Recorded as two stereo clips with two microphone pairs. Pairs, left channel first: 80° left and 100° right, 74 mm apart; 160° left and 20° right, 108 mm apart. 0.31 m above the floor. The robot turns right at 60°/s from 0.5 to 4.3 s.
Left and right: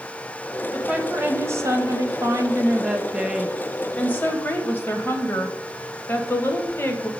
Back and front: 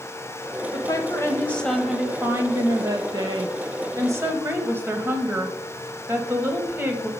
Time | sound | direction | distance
0.7 | a woman speaking | 175° right | 1.3 m